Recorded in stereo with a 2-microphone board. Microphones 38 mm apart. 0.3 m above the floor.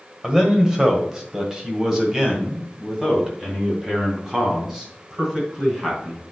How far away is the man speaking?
About 1.5 m.